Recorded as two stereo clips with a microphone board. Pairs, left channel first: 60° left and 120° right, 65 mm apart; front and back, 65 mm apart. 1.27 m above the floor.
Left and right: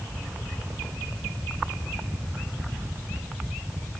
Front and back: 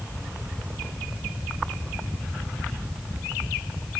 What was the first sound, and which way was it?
Only background noise.